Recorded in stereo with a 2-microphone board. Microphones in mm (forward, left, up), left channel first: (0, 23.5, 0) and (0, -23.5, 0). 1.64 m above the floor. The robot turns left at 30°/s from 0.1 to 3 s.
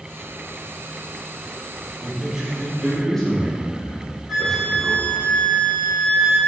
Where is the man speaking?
20° right (ahead or behind), 4.5 m; by 5.1 s 10° left (ahead or behind), 4.5 m.